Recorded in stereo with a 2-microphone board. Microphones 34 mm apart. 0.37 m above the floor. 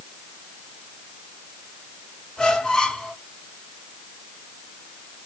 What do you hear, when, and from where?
2.4 s a squeak: 15° left (ahead or behind), 1.5 m